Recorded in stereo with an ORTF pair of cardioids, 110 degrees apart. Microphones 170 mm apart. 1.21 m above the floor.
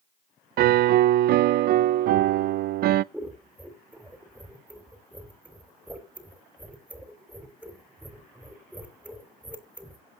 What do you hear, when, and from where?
0.6 s a piano: 65° right, 0.5 m
3.1 s scissors: 5° right, 3 m